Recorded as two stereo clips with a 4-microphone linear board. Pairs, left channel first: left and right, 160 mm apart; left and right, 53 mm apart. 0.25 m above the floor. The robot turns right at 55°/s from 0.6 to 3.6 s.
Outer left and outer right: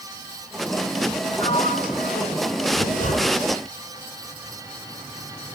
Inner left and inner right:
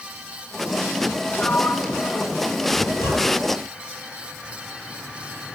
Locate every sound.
1.3 s a sliding door: 35° left, 2.5 m; by 2.6 s 105° left, 2.5 m
2.7 s a zipper: 70° left (ahead or behind), 5 m; by 3.6 s 25° left (ahead or behind), 5 m